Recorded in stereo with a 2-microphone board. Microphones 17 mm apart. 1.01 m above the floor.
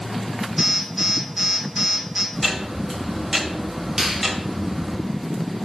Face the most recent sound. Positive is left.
turn(degrees=-20)  # may be behind; listen again after turning